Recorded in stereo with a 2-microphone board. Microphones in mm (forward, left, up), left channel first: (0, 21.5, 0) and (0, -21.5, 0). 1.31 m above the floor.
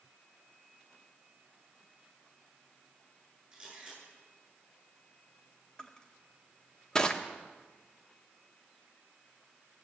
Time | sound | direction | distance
3.5 | a camera shutter | 10° right (ahead or behind) | 10 m
5.8 | crushing | 20° left (ahead or behind) | 1.2 m